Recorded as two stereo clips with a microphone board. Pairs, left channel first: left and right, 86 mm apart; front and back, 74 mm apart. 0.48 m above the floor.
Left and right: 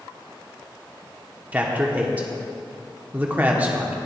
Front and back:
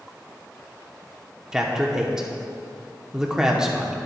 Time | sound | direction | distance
1.5 | a man speaking | 115° right | 0.7 m